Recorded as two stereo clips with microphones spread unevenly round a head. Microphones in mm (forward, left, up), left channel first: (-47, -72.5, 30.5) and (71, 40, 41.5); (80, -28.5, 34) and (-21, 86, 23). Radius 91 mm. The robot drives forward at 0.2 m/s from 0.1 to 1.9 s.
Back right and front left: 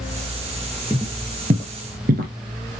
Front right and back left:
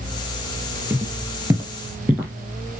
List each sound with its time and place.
0.9 s footsteps: 70° left, 1.5 m; by 2.3 s 60° left, 2.5 m